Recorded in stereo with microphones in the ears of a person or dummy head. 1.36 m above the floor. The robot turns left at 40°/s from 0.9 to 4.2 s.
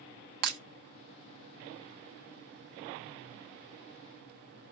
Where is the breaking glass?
55° right (ahead or behind), 0.8 m.